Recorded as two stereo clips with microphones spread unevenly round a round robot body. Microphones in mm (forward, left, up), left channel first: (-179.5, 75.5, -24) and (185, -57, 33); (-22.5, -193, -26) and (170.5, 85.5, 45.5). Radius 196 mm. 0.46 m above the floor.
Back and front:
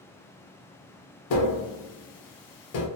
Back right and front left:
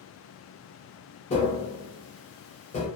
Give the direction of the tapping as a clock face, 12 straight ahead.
6 o'clock.